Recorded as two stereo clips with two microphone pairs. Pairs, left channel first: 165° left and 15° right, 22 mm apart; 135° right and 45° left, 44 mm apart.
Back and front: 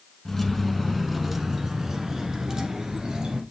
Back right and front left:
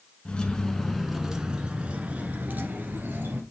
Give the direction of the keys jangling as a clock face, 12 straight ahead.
5 o'clock.